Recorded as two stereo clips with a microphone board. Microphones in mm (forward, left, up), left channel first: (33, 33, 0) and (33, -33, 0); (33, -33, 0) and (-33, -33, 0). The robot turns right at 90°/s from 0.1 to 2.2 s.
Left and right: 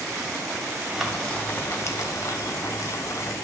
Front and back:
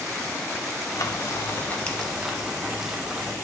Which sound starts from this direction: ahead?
Frying, at 0.9 s.